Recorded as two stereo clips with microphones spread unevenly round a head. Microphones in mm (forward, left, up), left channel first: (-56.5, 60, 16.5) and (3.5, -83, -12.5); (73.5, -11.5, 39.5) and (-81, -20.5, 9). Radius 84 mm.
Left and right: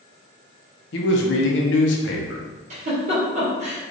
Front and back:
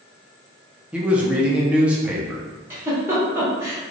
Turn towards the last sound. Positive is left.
turn(degrees=-105)